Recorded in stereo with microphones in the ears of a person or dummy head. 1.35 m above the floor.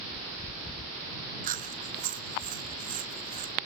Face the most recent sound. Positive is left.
turn(degrees=-45)  # may be behind; listen again after turning